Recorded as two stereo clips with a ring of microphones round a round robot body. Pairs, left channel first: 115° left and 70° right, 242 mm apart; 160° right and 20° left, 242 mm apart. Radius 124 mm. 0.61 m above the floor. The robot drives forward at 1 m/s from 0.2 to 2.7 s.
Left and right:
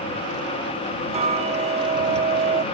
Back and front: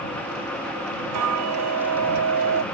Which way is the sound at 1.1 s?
Straight ahead.